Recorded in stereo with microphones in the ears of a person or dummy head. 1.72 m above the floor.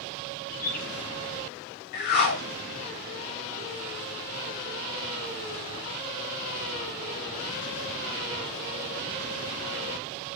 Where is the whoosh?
50° left (ahead or behind), 2 m.